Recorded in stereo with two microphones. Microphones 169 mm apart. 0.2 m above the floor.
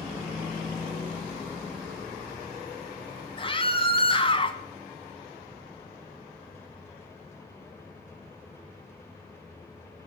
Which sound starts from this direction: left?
A scream, at 3.4 s.